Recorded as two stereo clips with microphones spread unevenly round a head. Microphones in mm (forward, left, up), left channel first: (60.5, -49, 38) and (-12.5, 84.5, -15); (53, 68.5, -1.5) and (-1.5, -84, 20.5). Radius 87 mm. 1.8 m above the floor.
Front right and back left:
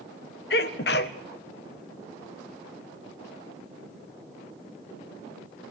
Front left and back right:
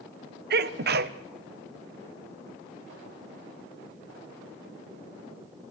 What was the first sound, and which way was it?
A sneeze, 85° right.